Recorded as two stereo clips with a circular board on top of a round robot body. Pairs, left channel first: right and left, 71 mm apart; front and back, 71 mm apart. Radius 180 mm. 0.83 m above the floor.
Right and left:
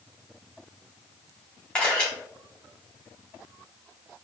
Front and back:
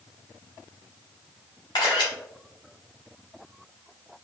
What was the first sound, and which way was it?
A camera shutter, 15° right.